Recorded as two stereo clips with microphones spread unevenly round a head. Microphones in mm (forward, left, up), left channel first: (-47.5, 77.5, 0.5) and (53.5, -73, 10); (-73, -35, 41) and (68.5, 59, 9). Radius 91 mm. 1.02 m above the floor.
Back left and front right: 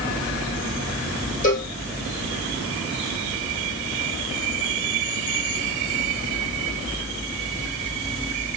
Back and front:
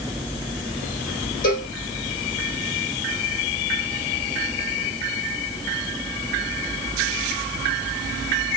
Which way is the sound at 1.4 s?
175° left.